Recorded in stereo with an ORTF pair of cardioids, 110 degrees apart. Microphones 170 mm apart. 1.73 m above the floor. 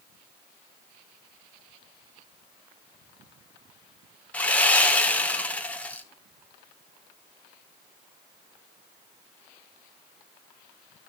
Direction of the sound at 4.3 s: 10° left.